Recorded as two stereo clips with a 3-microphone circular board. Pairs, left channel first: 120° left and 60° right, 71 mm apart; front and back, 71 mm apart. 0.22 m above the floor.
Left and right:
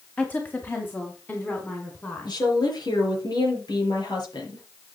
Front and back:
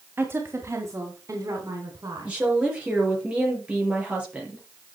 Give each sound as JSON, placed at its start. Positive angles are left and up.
{"t": 0.2, "sound": "a woman speaking", "azimuth_deg": 170, "distance_m": 1.7}
{"t": 2.2, "sound": "a woman speaking", "azimuth_deg": 105, "distance_m": 4.0}